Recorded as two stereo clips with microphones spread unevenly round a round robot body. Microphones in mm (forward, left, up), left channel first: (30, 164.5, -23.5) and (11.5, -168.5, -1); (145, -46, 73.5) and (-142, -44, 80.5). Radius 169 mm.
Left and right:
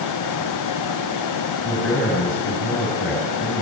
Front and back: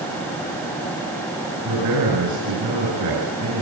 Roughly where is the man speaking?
Behind left.